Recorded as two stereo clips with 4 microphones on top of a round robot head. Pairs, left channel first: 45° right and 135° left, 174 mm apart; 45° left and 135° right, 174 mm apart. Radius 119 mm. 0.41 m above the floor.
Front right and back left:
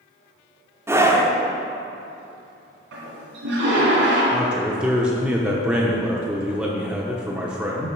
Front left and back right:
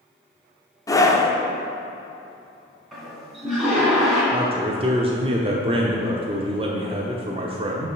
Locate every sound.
0.9 s a scream: 85° left, 1.1 m
2.9 s a toilet flushing: 135° left, 2.5 m
4.3 s a man speaking: 145° right, 0.9 m